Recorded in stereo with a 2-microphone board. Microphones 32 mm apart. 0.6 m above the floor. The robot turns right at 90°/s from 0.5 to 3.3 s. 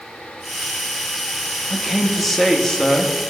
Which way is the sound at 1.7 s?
15° right (ahead or behind).